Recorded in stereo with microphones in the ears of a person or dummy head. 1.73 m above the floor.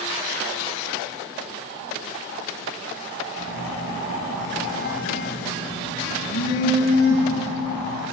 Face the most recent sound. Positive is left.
turn(degrees=60)  # may be behind; listen again after turning